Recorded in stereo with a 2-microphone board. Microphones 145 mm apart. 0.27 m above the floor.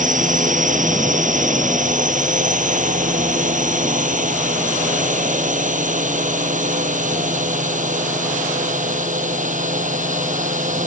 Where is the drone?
60° right (ahead or behind).